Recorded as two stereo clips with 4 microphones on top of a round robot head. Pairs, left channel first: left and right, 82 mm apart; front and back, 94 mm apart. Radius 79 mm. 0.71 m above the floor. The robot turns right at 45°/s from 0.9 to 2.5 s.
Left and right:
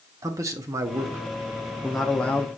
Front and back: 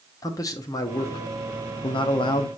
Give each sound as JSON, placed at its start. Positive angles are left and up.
{"t": 0.2, "sound": "a man speaking", "azimuth_deg": -45, "distance_m": 0.7}